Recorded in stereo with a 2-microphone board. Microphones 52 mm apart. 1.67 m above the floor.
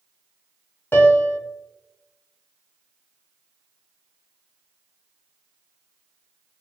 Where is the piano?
45° left (ahead or behind), 0.6 m.